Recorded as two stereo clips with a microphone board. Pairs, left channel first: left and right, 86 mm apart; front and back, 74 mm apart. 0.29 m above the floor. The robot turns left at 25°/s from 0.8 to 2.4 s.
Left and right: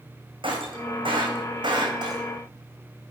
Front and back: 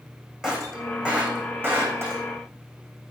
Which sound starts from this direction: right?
Breaking glass, at 0.4 s.